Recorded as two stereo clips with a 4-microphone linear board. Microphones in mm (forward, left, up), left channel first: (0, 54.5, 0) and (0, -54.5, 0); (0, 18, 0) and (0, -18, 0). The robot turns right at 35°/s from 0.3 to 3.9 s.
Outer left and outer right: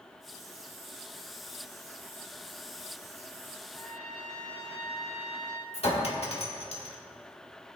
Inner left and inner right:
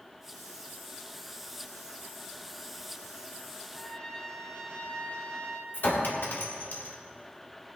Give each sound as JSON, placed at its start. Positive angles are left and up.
{"t": 3.7, "sound": "a trumpet", "side_deg": 25, "distance_m": 2.5}
{"t": 5.7, "sound": "a clink", "side_deg": 65, "distance_m": 1.6}